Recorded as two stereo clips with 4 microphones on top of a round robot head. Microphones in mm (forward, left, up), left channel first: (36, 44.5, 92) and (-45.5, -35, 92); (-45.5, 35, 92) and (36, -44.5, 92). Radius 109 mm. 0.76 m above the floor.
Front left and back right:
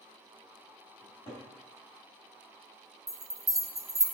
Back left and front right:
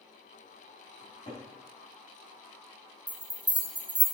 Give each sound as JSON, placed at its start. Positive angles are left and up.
{"t": 1.0, "sound": "a cupboard door", "azimuth_deg": 90, "distance_m": 3.0}
{"t": 3.1, "sound": "a bell", "azimuth_deg": -110, "distance_m": 0.8}